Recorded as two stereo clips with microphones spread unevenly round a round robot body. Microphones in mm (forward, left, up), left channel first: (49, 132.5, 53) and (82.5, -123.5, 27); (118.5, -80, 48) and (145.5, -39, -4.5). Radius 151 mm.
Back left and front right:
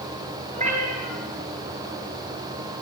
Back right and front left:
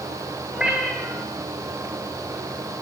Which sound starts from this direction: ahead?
A cat meowing, at 0.5 s.